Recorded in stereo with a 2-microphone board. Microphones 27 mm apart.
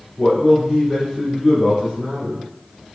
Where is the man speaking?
5° right (ahead or behind), 1.7 m.